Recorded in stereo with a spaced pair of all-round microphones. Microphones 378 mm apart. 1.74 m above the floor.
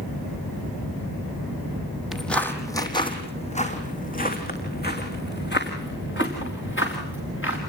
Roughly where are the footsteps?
Centre.